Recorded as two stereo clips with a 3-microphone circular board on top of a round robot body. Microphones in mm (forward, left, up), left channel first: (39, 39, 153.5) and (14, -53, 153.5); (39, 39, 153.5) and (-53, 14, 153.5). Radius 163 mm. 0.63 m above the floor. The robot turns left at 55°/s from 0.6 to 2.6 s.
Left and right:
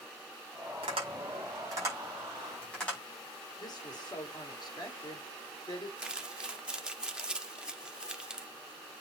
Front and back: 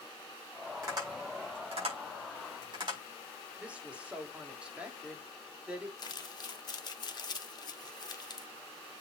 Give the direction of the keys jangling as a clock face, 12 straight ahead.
I don't hear keys jangling.